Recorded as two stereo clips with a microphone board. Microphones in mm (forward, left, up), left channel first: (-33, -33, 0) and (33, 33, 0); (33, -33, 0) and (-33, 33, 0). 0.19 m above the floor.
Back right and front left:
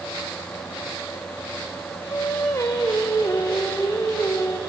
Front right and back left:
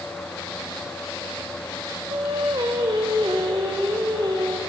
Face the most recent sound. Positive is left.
turn(degrees=170)